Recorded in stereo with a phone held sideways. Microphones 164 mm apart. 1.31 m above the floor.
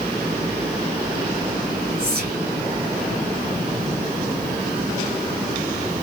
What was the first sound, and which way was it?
Whispering, 60° right (ahead or behind).